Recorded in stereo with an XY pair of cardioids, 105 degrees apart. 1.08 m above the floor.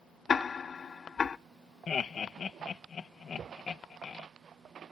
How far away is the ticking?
About 0.5 m.